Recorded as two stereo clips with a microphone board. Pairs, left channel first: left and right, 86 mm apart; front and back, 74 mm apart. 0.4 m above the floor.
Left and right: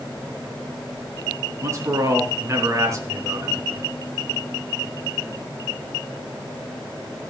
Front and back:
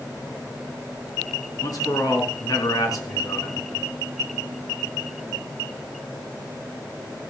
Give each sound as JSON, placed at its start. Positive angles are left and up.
{"t": 1.6, "sound": "a man speaking", "azimuth_deg": -35, "distance_m": 4.0}